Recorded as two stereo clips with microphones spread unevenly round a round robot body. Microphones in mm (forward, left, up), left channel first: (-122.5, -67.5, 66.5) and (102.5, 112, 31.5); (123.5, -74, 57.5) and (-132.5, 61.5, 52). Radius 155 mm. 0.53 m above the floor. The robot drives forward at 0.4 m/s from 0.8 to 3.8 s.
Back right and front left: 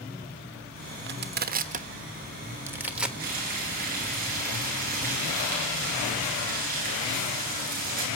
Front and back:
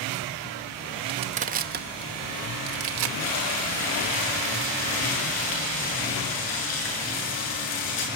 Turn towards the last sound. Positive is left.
turn(degrees=-25)